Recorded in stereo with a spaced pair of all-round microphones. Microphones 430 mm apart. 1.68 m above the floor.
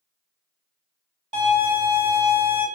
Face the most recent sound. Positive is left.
turn(degrees=-10)  # may be behind; listen again after turning